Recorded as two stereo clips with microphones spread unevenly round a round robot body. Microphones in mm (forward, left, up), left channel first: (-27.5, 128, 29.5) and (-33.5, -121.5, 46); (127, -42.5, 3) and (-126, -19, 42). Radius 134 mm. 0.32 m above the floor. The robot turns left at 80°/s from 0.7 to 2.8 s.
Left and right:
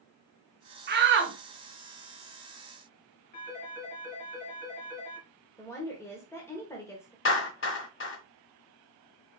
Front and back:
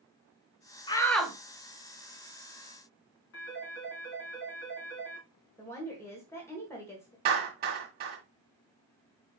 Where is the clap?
115° left, 1.9 m.